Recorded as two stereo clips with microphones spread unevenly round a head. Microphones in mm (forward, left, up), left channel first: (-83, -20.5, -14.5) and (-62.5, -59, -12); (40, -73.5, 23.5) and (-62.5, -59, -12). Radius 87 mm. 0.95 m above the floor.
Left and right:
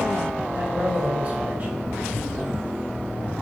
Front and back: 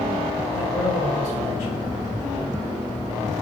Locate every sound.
0.5 s a man speaking: 15° left, 1.8 m